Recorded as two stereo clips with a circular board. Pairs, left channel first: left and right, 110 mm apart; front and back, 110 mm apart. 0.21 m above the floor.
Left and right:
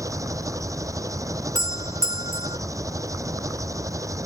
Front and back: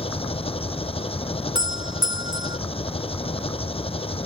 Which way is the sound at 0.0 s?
30° right.